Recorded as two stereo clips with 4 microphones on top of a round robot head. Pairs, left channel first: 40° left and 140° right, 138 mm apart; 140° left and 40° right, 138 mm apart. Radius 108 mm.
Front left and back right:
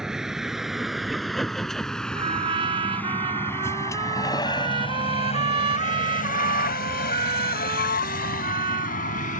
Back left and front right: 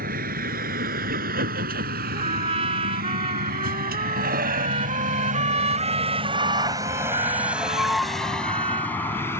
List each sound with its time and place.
0.0 s a vehicle: 55° right; by 9.4 s 70° left
2.1 s a trumpet: 90° right